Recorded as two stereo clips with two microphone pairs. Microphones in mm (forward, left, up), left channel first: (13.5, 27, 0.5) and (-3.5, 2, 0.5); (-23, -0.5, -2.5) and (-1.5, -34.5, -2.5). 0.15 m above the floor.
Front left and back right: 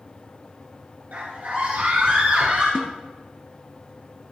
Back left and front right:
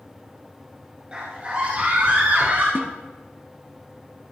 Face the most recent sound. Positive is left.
turn(degrees=-75)